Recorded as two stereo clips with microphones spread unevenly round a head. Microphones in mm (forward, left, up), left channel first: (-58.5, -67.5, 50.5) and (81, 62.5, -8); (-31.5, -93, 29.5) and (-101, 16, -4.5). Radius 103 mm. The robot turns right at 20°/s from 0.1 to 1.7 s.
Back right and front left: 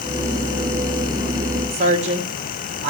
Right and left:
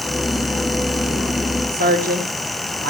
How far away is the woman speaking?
About 3 m.